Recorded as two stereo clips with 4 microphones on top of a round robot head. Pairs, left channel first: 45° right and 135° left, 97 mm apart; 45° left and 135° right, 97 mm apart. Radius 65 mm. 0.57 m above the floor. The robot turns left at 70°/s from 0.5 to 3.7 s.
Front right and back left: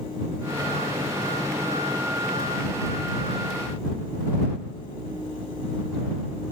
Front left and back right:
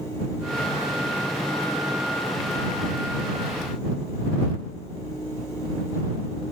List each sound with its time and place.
Only background noise.